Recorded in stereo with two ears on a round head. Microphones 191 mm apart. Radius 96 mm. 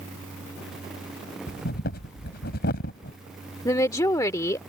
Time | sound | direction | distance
1.5 | breathing | 50° left (ahead or behind) | ?
3.6 | a woman speaking | 15° left (ahead or behind) | ?